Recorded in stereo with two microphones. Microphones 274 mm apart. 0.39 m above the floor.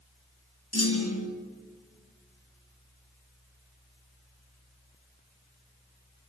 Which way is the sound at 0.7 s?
65° left (ahead or behind).